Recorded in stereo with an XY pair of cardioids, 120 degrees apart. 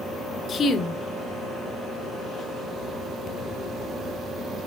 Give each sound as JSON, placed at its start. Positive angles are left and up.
{"t": 0.5, "sound": "a woman speaking", "azimuth_deg": 40, "distance_m": 1.6}